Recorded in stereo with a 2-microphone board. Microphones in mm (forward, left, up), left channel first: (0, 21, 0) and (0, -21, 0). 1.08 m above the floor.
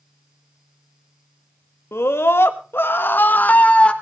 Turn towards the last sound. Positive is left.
turn(degrees=25)  # may be behind; listen again after turning